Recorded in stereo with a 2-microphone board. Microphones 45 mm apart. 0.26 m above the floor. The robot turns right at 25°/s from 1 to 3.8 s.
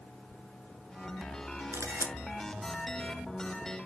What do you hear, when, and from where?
1.7 s a camera shutter: 80° right, 0.9 m; by 2.1 s 75° right (ahead or behind), 0.9 m